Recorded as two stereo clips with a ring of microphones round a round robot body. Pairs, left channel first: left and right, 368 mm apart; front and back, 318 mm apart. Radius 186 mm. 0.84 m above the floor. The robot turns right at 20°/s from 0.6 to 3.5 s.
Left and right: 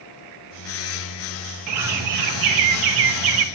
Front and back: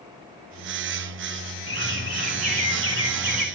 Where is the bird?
130° right, 1.1 m; by 3.5 s 90° right, 1.1 m.